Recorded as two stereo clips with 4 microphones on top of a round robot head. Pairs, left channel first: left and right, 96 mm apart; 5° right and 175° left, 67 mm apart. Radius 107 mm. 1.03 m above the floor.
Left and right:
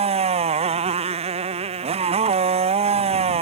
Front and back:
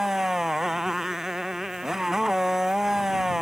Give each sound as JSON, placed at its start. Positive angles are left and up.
{"t": 0.0, "sound": "a motorcycle", "azimuth_deg": -95}